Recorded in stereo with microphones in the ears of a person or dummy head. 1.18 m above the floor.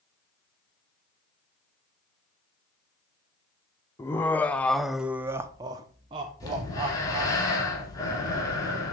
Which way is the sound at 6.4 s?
15° left (ahead or behind).